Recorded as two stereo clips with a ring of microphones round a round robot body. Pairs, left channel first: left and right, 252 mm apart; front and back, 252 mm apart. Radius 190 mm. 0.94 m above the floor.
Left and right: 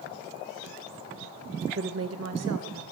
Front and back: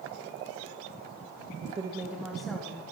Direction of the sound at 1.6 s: 125° right.